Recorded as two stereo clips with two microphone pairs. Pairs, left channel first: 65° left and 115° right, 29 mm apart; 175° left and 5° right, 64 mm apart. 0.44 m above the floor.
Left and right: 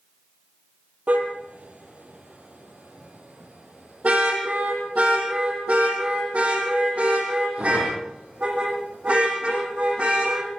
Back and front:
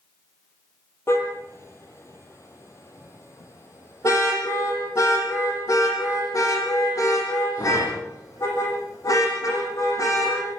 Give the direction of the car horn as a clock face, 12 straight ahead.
5 o'clock.